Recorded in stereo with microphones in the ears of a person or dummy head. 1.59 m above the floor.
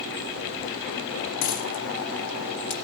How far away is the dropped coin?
About 4.5 m.